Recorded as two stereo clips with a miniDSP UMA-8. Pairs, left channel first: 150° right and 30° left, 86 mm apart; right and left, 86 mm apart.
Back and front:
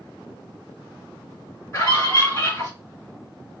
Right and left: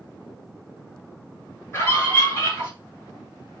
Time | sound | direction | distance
1.7 | a scream | 125° right | 1.6 m